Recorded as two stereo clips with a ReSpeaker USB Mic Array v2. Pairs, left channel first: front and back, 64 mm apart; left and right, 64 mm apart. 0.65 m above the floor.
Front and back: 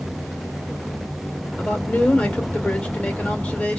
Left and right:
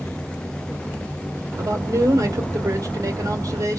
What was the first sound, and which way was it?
A man speaking, 70° right.